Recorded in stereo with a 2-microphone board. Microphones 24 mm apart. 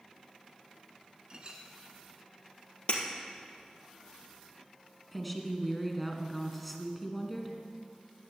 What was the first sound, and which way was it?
A clink, 30° right (ahead or behind).